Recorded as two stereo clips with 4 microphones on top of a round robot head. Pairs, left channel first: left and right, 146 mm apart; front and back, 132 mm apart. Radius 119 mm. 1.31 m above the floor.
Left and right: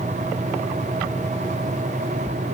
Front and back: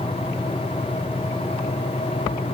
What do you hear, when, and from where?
Only background noise.